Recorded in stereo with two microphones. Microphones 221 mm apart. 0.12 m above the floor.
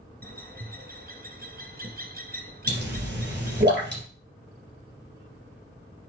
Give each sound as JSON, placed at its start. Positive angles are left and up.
{"t": 0.2, "sound": "a bird", "side_deg": -45, "distance_m": 1.5}
{"t": 2.7, "sound": "a pop", "side_deg": -50, "distance_m": 3.5}